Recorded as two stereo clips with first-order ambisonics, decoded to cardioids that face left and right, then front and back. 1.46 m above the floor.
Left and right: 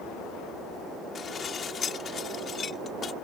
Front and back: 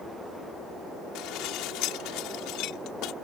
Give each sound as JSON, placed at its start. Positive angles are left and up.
{"t": 1.1, "sound": "dishes clattering", "azimuth_deg": 30}